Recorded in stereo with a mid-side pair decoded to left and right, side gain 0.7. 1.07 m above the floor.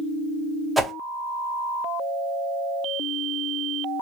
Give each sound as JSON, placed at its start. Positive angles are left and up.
{"t": 0.8, "sound": "a whoosh", "azimuth_deg": -5, "distance_m": 0.7}